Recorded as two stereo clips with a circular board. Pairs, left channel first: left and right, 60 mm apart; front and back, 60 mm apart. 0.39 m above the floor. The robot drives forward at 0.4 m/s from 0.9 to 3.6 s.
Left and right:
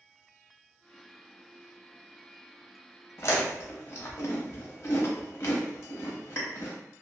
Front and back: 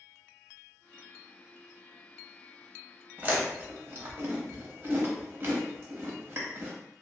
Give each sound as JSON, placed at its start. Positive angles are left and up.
{"t": 3.2, "sound": "chewing", "azimuth_deg": 120, "distance_m": 0.7}